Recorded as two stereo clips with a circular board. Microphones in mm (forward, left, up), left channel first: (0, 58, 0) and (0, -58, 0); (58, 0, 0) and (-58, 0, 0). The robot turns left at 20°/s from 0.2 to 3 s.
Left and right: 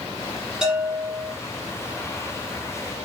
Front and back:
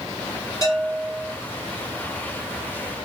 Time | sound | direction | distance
0.6 | a bell | 15° right | 1.9 m